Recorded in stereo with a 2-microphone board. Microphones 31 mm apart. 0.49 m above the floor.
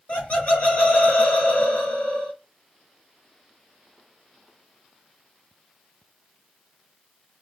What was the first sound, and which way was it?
Laughter, 50° left (ahead or behind).